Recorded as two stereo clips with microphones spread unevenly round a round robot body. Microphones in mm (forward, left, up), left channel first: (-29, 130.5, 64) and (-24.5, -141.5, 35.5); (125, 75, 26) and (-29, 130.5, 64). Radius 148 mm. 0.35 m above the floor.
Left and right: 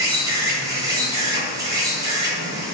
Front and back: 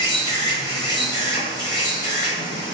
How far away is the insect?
About 1.1 m.